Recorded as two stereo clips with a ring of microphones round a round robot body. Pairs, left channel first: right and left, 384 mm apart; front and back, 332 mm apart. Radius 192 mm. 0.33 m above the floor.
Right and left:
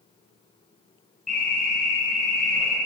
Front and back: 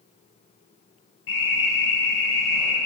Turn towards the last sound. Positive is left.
turn(degrees=0)